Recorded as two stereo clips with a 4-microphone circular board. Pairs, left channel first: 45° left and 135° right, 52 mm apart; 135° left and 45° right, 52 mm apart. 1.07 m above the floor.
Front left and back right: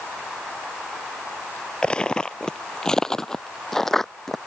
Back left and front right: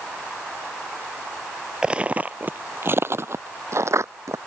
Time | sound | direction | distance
1.8 | footsteps | straight ahead | ?